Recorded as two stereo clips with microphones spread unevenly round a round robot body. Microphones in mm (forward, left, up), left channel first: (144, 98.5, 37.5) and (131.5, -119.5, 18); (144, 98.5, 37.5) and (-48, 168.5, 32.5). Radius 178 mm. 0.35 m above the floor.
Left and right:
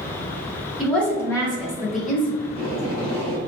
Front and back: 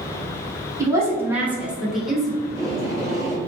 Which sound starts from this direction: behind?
A woman speaking, at 0.8 s.